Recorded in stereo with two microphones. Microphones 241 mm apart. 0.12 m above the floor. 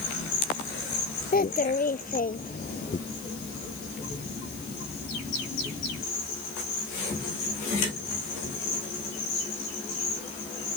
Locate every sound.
1.3 s a child speaking: 35° left (ahead or behind)